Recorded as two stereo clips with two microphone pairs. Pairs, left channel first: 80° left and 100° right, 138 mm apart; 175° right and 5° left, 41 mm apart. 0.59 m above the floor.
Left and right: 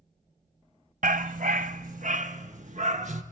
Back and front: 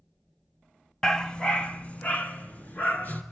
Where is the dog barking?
95° right, 0.8 m; by 3.2 s 130° right, 2.5 m.